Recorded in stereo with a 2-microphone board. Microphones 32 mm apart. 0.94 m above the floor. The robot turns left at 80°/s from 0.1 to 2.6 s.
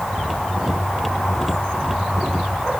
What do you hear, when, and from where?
Only background noise.